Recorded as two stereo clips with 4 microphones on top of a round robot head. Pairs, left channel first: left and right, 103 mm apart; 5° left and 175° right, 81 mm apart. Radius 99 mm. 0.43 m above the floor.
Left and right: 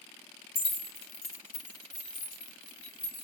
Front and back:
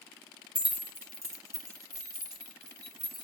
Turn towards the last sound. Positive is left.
turn(degrees=145)